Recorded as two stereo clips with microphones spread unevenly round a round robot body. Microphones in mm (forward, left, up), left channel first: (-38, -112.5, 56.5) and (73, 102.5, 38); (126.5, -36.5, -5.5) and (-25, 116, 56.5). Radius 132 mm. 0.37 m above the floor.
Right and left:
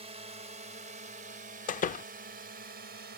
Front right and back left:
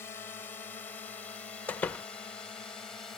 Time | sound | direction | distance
0.0 | a drone | 10° left | ?
1.7 | a door slam | 90° right | ?